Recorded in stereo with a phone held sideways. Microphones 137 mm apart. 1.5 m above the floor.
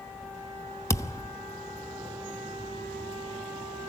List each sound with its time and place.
0.9 s a thud: 20° left (ahead or behind), 0.9 m